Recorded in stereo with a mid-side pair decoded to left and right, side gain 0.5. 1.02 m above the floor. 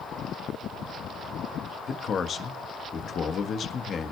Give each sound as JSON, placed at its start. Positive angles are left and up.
{"t": 1.9, "sound": "a man speaking", "azimuth_deg": 45, "distance_m": 1.1}